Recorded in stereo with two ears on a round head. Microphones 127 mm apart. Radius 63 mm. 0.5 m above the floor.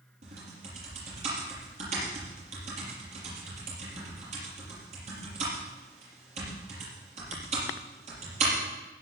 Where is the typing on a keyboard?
50° right (ahead or behind), 6.5 m.